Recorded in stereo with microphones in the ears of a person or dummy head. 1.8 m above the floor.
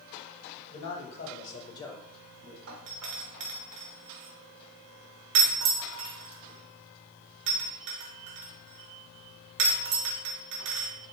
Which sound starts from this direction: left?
A man speaking, at 0.7 s.